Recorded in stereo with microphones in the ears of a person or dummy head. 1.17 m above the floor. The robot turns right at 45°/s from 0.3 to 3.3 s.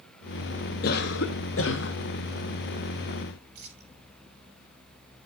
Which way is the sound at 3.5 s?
55° right (ahead or behind).